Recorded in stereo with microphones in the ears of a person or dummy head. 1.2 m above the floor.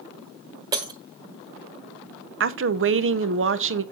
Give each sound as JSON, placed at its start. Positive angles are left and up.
{"t": 0.7, "sound": "breaking glass", "side_deg": -20, "distance_m": 1.4}
{"t": 2.4, "sound": "a woman speaking", "side_deg": -55, "distance_m": 0.6}